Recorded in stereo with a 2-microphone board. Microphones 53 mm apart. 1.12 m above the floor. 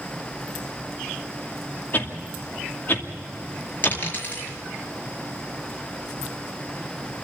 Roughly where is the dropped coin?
Left.